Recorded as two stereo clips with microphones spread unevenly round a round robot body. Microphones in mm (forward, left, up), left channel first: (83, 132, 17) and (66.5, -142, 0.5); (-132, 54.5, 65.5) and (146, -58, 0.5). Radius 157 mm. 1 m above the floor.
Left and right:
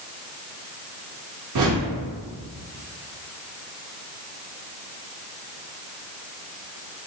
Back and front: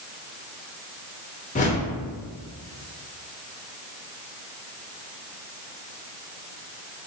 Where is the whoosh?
135° right, 0.6 m.